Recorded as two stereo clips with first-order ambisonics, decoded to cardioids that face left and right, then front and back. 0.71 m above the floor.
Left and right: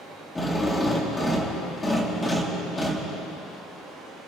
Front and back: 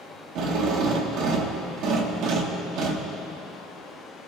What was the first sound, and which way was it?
A drill, 165° left.